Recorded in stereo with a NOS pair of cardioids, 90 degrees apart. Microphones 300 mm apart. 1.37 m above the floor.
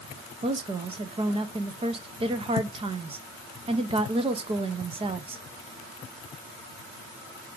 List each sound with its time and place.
0.4 s a woman speaking: 20° right, 0.7 m